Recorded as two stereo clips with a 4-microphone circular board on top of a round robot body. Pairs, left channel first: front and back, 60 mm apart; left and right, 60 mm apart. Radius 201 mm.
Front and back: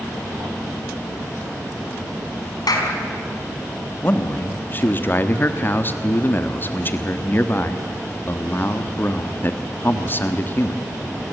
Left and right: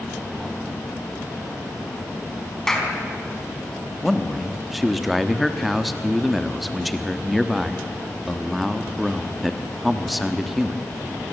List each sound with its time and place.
2.7 s a clap: 5° left, 4 m
4.0 s a man speaking: straight ahead, 1.6 m